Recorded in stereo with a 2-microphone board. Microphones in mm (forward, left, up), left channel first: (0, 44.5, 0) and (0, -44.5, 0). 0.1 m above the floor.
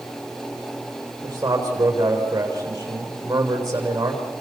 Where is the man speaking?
35° right (ahead or behind), 7.5 m.